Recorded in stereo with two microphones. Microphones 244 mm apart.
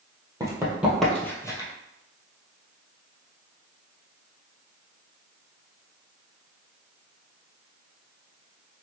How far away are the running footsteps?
About 1.4 m.